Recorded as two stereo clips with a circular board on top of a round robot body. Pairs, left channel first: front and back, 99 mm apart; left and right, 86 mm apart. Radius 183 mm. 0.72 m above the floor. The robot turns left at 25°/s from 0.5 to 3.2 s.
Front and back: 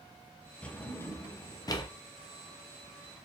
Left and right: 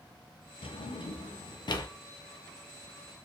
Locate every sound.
0.6 s a drawer: 80° left, 0.7 m; by 1.9 s 50° left, 0.7 m